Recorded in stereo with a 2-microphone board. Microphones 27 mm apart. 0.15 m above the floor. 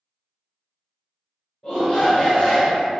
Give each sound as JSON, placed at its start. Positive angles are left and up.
{"t": 1.6, "sound": "a shout", "side_deg": 10, "distance_m": 1.7}